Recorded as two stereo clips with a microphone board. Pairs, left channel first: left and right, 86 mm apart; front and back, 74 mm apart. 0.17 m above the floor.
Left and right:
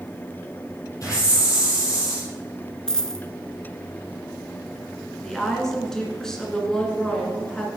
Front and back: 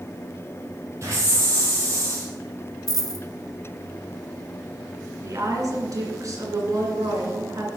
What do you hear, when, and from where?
1.0 s a hiss: 135° left, 5 m
2.9 s a dropped coin: 10° left, 0.9 m
5.2 s a woman speaking: 170° left, 2.5 m